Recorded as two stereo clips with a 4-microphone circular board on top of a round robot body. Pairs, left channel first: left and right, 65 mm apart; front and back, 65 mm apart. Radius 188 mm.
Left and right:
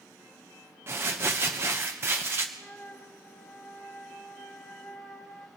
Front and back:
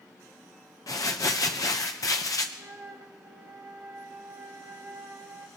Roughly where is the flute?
Behind.